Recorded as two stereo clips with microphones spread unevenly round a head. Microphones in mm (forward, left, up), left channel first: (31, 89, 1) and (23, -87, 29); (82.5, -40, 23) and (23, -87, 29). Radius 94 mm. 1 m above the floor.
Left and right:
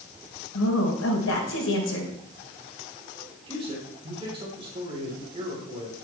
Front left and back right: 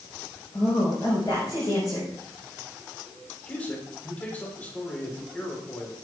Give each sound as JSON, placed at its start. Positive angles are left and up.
{"t": 0.5, "sound": "a woman speaking", "azimuth_deg": 105, "distance_m": 4.5}
{"t": 3.5, "sound": "a man speaking", "azimuth_deg": -30, "distance_m": 4.0}